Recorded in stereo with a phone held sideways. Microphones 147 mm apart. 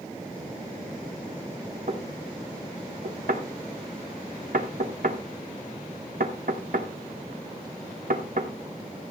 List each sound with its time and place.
1.9 s knocking: 75° right (ahead or behind), 1.7 m